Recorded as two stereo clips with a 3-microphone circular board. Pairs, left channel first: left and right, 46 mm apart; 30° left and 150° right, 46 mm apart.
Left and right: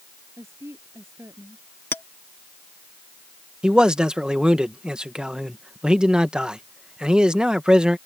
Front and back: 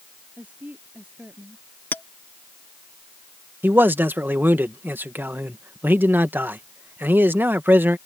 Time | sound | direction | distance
0.4 | a woman speaking | 95° right | ?
1.9 | a clink | 65° left | ?
3.6 | a man speaking | 155° right | ?